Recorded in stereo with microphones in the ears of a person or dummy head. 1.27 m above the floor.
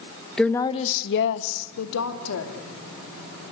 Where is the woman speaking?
5° right (ahead or behind), 1.1 m; by 2.5 s 90° left, 3 m.